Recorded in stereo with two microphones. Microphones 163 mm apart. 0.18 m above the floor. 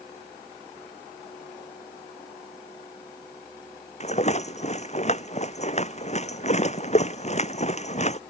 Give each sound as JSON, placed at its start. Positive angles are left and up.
{"t": 4.0, "sound": "a rattle", "side_deg": 40}